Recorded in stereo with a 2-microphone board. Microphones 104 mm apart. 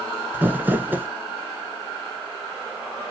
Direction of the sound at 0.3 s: 20° right (ahead or behind).